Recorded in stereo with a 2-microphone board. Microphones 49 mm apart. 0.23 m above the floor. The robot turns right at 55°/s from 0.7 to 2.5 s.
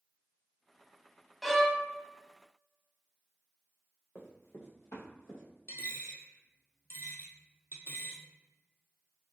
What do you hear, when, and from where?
1.4 s a violin: centre (ahead or behind), 0.5 m; by 1.8 s 15° left (ahead or behind), 0.5 m
4.2 s running footsteps: 50° left (ahead or behind), 1.3 m
5.7 s a dropped coin: 55° left (ahead or behind), 0.8 m